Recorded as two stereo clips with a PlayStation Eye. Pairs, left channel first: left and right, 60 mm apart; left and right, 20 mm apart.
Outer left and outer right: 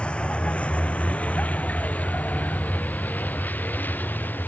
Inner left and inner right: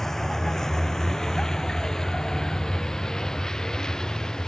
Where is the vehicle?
15° left (ahead or behind); by 4.5 s 30° left (ahead or behind).